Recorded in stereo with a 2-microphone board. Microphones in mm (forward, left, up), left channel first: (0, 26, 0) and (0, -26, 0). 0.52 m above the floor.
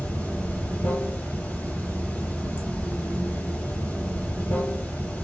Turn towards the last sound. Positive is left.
turn(degrees=35)  # may be behind; listen again after turning